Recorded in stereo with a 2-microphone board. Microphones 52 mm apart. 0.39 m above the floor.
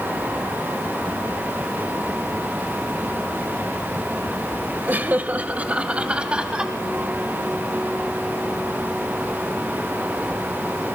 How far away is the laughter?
About 1.5 m.